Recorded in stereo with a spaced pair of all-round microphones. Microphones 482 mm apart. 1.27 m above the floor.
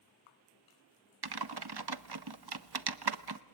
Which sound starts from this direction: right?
Typing on a keyboard, at 1.2 s.